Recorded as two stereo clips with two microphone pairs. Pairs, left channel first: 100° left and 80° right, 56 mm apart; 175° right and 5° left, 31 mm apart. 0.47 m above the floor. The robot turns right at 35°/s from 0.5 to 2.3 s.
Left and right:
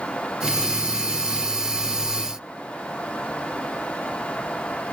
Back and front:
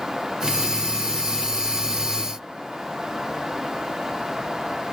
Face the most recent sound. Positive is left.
No sound to turn to.